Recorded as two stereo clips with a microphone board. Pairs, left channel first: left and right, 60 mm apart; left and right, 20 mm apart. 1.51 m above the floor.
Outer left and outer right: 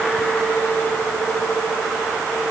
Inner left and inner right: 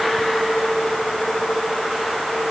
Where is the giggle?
I don't hear a giggle.